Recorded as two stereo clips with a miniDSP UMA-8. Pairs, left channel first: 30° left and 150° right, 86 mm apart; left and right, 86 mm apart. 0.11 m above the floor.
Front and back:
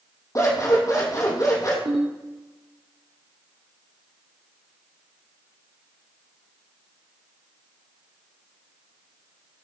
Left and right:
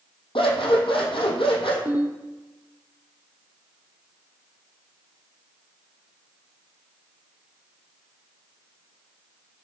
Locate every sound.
0.3 s scissors: 80° left, 3 m
1.9 s a ringtone: 160° right, 2.5 m